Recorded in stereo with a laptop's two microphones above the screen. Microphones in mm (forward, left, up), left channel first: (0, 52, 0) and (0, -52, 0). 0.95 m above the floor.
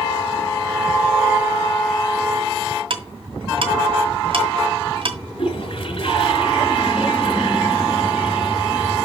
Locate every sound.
2.9 s ticking: 60° right (ahead or behind), 1.9 m
5.4 s a toilet flushing: 65° left (ahead or behind), 4.5 m